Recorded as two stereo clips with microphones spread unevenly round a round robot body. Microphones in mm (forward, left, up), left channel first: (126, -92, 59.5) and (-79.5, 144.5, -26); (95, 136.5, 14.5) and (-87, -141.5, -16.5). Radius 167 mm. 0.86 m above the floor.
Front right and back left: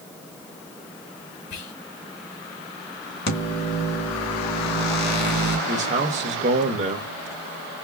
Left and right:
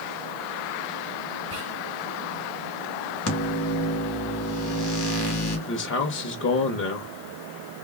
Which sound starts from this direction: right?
Whispering, at 1.5 s.